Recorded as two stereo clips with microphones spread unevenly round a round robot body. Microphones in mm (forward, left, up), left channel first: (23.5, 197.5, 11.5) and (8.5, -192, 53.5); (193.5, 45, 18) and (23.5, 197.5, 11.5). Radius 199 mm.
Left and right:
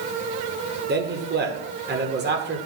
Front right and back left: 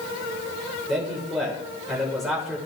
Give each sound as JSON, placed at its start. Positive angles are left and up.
{"t": 0.9, "sound": "a man speaking", "azimuth_deg": -135, "distance_m": 1.3}